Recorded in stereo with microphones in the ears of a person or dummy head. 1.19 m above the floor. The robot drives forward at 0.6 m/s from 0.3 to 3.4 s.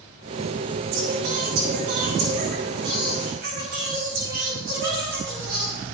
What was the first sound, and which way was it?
Singing, 75° right (ahead or behind).